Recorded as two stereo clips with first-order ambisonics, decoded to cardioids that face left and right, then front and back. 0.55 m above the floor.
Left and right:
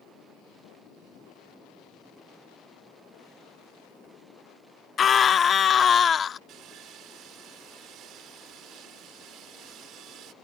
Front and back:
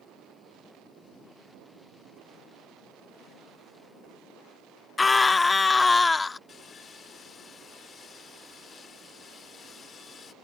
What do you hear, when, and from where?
5.0 s a scream: 60° left
6.5 s sawing: 60° right